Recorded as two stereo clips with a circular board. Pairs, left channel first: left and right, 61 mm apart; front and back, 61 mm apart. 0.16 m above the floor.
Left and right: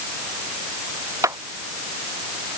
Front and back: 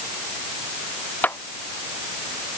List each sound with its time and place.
1.2 s a clap: 60° right